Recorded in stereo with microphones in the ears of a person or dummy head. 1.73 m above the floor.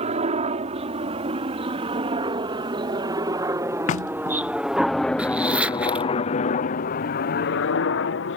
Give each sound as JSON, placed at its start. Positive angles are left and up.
{"t": 0.0, "sound": "a helicopter", "side_deg": -35}
{"t": 3.9, "sound": "knocking", "side_deg": 35}
{"t": 5.2, "sound": "a zipper", "side_deg": -5}